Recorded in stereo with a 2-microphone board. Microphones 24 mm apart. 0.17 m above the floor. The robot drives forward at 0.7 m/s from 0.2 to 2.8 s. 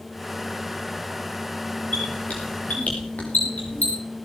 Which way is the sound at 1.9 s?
75° left (ahead or behind).